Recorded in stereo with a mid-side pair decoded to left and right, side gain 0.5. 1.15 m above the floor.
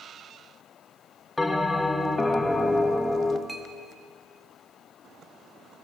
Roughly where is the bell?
Ahead.